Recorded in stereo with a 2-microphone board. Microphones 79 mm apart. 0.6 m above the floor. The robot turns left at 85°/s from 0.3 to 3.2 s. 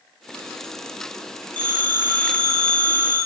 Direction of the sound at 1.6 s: 90° right.